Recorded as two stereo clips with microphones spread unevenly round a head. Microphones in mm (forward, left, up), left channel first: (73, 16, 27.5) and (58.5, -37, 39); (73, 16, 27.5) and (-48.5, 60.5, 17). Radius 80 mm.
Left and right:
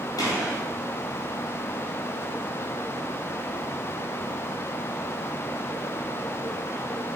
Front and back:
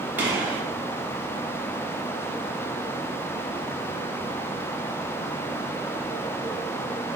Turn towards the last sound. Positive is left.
turn(degrees=80)